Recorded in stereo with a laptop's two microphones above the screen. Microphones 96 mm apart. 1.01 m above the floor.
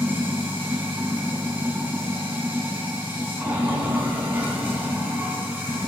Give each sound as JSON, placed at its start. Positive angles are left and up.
{"t": 0.0, "sound": "running water", "side_deg": -20, "distance_m": 4.0}